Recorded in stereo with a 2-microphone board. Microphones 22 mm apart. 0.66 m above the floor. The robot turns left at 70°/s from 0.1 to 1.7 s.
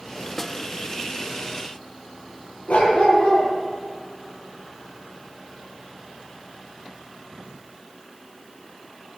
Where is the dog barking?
70° left (ahead or behind), 8 m.